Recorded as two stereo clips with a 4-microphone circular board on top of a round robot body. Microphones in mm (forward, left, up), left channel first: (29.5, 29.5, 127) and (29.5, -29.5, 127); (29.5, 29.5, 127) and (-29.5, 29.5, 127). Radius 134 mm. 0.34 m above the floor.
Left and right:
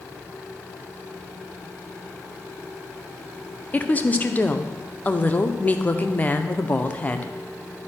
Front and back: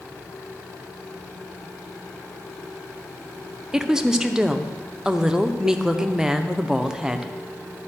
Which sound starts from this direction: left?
A woman speaking, at 3.7 s.